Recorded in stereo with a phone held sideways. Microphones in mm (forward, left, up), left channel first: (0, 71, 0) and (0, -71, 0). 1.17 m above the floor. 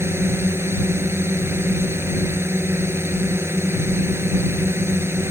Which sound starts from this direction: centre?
A drone, at 0.0 s.